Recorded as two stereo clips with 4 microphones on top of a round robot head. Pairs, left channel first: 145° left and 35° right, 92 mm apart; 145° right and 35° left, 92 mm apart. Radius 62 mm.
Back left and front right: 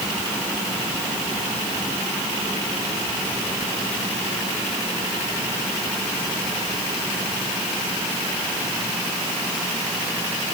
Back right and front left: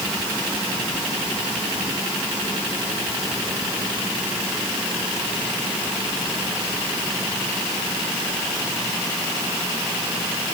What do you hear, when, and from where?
Only background noise.